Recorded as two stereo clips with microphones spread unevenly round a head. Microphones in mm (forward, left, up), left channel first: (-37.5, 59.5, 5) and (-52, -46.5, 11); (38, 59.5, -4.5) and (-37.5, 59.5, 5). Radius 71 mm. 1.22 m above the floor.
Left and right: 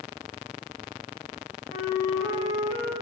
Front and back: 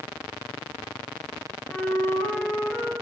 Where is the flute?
65° left, 2.5 m.